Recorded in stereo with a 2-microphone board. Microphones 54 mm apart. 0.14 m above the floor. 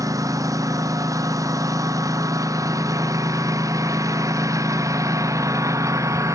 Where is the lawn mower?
85° right; by 6.3 s 65° right (ahead or behind).